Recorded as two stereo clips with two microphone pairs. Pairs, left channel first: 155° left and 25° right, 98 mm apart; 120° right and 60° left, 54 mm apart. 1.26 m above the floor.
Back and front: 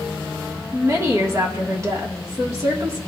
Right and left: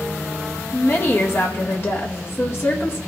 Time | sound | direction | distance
0.7 | a woman speaking | 80° right | 1.6 m